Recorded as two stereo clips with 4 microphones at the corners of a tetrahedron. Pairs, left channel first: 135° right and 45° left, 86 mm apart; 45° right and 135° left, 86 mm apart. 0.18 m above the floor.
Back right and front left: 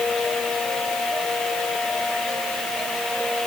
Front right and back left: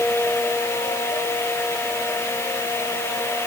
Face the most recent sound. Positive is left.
No sound to turn to.